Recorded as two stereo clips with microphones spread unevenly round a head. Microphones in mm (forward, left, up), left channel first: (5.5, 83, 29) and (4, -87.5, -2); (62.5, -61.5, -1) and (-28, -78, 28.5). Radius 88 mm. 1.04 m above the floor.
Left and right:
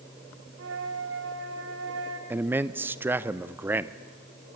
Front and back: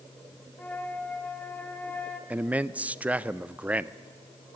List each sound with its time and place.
0.6 s a flute: 70° right, 2 m
2.3 s a man speaking: 70° right, 0.5 m